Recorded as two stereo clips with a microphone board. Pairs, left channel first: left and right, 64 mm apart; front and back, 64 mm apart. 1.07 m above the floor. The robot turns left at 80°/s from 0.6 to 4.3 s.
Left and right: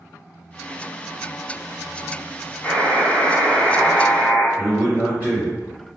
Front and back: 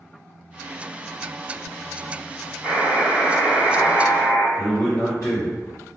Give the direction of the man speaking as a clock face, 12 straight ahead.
1 o'clock.